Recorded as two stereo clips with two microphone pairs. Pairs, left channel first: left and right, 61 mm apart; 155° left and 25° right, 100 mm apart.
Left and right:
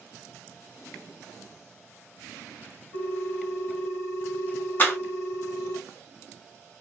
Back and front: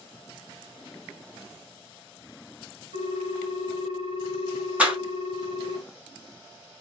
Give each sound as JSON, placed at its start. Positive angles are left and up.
{"t": 2.9, "sound": "a ringtone", "azimuth_deg": 0, "distance_m": 1.3}
{"t": 4.8, "sound": "a clap", "azimuth_deg": 50, "distance_m": 1.0}